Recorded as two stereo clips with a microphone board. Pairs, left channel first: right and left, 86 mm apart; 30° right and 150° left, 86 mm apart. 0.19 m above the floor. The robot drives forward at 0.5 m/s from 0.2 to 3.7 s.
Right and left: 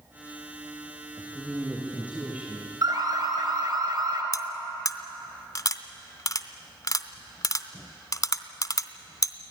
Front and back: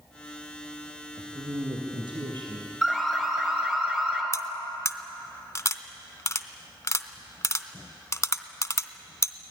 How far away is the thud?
No thud in this recording.